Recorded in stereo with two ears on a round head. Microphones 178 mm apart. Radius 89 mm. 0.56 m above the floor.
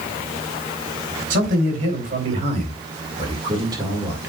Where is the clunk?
I don't hear a clunk.